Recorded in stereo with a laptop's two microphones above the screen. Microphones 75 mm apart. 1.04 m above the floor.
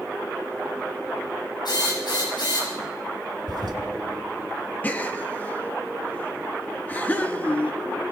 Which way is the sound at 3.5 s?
70° right (ahead or behind).